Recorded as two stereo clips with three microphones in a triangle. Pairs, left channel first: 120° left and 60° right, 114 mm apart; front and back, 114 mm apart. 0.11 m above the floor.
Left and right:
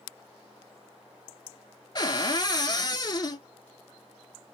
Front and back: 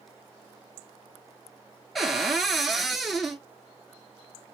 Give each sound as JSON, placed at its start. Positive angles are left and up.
{"t": 1.9, "sound": "a cupboard door", "azimuth_deg": 90, "distance_m": 0.5}